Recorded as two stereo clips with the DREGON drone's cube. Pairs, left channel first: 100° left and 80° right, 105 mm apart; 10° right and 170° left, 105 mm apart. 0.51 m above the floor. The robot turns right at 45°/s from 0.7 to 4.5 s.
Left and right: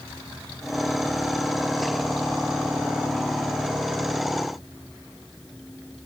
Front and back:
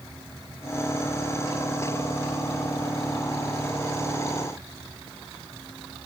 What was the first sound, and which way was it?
Only background noise.